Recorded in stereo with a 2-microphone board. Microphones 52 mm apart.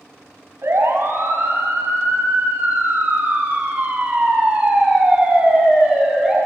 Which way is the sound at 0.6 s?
60° right (ahead or behind).